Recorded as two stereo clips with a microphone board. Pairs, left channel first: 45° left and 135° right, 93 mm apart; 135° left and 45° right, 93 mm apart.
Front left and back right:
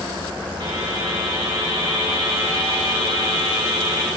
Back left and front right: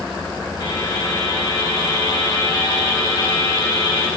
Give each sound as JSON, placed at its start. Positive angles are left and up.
{"t": 0.6, "sound": "a buzzer", "azimuth_deg": 180, "distance_m": 3.0}